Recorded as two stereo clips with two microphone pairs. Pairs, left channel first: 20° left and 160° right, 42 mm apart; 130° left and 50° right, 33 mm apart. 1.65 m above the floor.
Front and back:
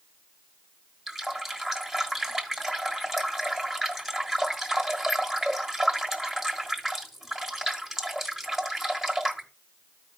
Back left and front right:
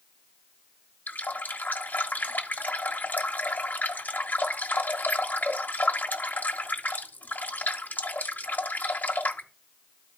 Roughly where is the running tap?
Behind left.